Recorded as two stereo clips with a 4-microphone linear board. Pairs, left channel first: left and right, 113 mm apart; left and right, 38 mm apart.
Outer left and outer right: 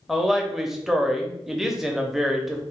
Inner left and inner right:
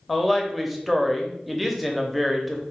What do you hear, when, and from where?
0.1 s a woman speaking: 5° right (ahead or behind), 0.7 m